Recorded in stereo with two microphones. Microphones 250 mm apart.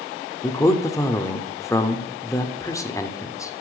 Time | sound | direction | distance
0.4 | a man speaking | 10° left (ahead or behind) | 1.0 m